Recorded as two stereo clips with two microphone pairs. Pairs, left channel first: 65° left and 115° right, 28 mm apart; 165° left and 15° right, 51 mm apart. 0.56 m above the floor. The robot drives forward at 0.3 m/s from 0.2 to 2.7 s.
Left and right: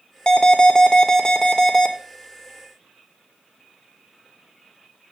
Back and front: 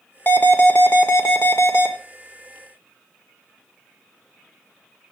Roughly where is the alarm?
Behind left.